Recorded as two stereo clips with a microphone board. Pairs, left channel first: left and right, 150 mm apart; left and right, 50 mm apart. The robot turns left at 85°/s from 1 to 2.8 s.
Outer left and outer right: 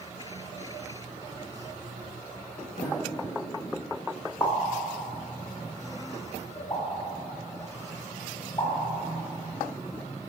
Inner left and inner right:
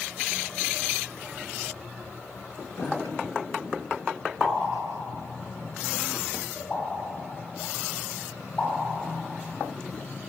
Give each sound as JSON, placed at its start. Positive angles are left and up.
{"t": 2.8, "sound": "a sliding door", "side_deg": 55, "distance_m": 1.5}
{"t": 4.4, "sound": "a pop", "side_deg": 30, "distance_m": 1.7}